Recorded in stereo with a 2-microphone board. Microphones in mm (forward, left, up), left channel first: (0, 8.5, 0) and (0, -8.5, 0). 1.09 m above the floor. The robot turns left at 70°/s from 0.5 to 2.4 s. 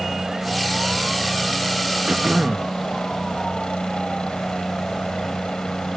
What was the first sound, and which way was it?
A helicopter, 130° right.